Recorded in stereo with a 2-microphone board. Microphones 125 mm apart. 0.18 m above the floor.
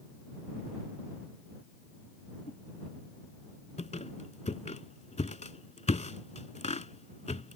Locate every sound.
2.5 s a whoosh: 85° left
3.8 s a squeak: 65° left (ahead or behind)